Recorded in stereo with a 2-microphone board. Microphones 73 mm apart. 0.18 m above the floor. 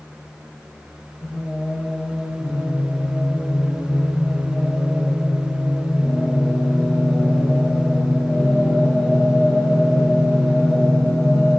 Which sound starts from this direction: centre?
Singing, at 1.2 s.